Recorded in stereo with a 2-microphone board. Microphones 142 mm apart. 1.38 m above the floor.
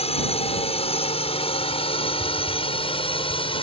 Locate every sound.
0.0 s a drone: 45° left (ahead or behind); by 3.6 s 40° left (ahead or behind)